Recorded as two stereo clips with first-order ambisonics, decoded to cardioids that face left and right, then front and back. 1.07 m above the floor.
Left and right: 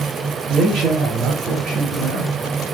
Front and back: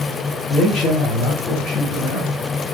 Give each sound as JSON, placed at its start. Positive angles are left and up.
{"t": 0.5, "sound": "a man speaking", "azimuth_deg": -40, "distance_m": 1.7}